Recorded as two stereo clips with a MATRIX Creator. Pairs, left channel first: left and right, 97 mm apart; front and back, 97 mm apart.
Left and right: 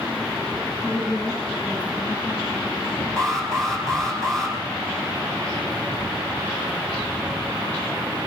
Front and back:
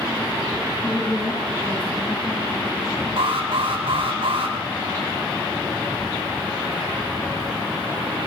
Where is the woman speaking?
100° left, 9 m.